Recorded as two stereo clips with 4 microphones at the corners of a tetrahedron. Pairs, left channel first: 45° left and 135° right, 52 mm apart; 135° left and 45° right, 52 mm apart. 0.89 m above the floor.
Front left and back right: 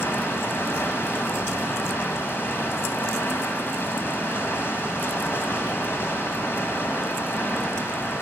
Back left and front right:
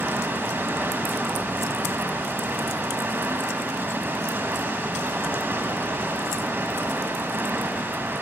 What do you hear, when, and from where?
0.0 s running water: straight ahead, 2 m